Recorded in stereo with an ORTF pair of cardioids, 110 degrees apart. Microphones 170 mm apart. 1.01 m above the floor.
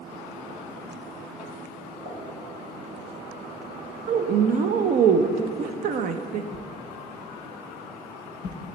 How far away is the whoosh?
About 0.7 m.